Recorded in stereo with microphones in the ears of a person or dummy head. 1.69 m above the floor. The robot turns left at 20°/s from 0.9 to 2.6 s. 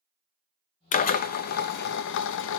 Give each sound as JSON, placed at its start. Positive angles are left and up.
{"t": 0.9, "sound": "a drill", "azimuth_deg": 125, "distance_m": 0.5}